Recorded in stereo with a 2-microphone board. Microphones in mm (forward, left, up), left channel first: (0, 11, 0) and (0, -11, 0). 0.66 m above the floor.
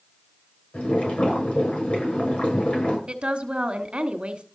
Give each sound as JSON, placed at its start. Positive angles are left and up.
{"t": 0.7, "sound": "boiling", "side_deg": 85, "distance_m": 6.5}
{"t": 3.1, "sound": "a woman speaking", "side_deg": -60, "distance_m": 1.4}